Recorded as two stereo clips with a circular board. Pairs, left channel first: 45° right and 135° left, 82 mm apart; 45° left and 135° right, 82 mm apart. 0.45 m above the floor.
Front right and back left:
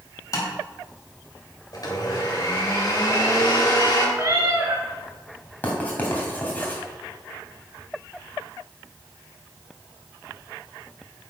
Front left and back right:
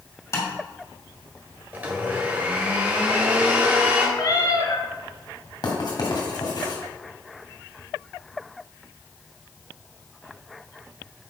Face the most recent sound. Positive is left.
turn(degrees=25)